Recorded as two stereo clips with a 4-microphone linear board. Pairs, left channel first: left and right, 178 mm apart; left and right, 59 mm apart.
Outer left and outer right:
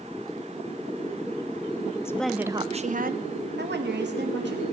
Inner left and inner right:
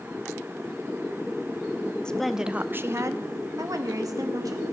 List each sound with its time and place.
2.0 s a woman speaking: 15° left (ahead or behind), 0.6 m; by 4.6 s 85° right, 1.8 m